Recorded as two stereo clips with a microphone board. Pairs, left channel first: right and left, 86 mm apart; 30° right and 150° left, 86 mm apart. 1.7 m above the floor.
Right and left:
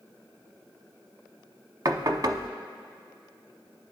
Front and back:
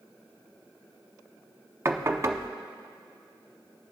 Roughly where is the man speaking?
No man speaking in this recording.